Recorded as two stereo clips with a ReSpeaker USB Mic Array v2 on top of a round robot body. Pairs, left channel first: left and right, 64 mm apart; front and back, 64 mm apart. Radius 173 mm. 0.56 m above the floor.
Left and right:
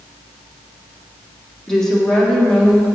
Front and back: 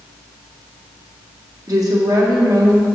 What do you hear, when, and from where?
1.7 s a woman speaking: 170° left, 2 m